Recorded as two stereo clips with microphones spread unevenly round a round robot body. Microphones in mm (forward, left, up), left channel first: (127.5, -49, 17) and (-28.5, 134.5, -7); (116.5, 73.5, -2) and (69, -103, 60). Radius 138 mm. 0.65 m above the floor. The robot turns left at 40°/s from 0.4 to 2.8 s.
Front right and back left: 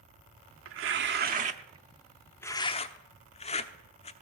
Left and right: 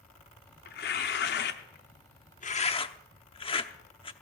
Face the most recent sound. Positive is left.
turn(degrees=20)